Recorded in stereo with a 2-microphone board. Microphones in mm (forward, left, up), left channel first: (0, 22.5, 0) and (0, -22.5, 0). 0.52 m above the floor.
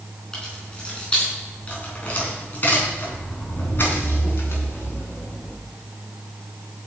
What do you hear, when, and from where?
0.3 s keys jangling: 15° left (ahead or behind), 4.5 m; by 5.5 s 65° left (ahead or behind), 5 m